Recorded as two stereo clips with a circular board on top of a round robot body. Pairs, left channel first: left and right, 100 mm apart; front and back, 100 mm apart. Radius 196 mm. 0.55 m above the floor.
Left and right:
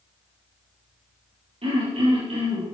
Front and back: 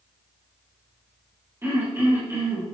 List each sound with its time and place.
1.6 s throat clearing: 110° right, 6 m